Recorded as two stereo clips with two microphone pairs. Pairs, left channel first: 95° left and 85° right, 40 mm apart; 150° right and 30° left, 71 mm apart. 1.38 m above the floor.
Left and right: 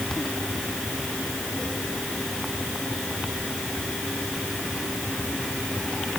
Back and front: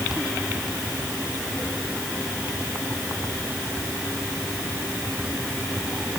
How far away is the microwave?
I don't hear a microwave.